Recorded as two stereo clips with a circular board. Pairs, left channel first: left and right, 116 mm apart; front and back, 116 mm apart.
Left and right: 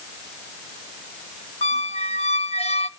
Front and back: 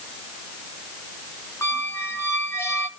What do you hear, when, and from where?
1.6 s a squeak: 70° left, 0.8 m